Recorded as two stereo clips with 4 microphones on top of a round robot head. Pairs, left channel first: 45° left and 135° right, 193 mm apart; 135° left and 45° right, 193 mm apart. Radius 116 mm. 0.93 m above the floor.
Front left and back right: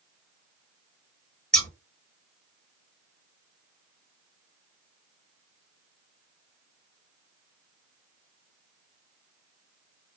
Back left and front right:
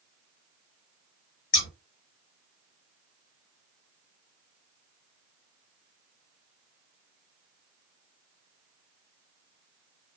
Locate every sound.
1.5 s scissors: 130° left, 1.1 m